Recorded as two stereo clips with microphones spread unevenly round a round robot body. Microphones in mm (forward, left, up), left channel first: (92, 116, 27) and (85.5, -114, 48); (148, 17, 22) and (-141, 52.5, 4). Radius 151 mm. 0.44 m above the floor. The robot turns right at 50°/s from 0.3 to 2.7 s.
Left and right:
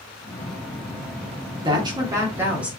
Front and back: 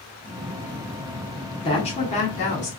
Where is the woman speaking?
50° right, 0.8 m; by 2.7 s straight ahead, 0.8 m.